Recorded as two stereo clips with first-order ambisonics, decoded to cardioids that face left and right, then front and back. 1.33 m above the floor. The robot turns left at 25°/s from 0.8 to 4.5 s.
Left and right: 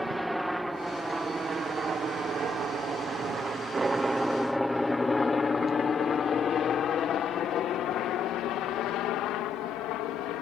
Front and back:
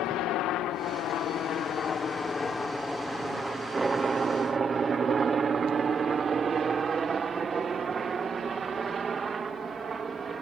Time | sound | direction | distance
0.0 | a helicopter | 5° right | ?